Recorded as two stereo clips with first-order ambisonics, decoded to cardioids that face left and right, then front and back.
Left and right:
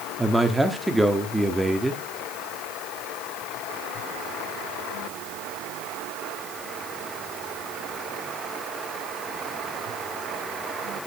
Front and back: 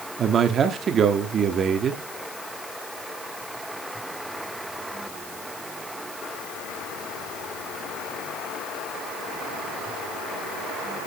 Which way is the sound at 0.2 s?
170° right.